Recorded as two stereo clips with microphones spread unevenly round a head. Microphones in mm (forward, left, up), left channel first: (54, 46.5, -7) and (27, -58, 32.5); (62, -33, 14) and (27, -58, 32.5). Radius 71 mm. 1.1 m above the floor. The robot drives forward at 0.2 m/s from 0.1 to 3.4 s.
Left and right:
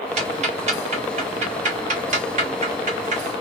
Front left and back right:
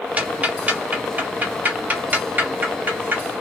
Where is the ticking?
95° right, 2.5 m; by 3.2 s 105° right, 2.5 m.